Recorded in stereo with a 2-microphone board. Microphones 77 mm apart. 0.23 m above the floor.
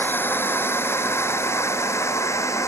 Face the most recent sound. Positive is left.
turn(degrees=40)  # may be behind; listen again after turning